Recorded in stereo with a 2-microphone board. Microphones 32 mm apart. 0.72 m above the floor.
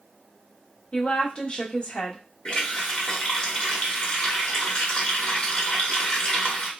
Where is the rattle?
No rattle in this recording.